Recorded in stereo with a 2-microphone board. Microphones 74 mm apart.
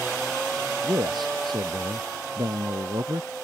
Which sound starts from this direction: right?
A man speaking, at 0.8 s.